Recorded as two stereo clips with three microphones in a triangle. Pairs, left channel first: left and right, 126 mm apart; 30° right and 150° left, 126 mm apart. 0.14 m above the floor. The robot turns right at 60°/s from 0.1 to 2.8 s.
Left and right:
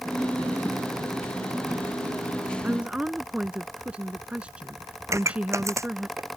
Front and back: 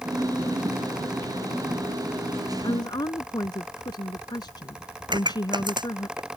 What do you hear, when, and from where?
2.6 s a woman speaking: 25° right; by 6.1 s 15° right
5.1 s a pop: 155° right